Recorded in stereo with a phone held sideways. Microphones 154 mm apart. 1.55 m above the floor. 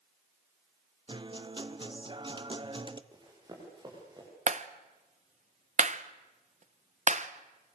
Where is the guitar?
30° right (ahead or behind), 0.9 m.